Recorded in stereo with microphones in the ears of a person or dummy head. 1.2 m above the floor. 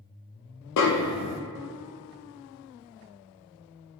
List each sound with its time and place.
0.8 s a snare drum: 65° left (ahead or behind), 0.7 m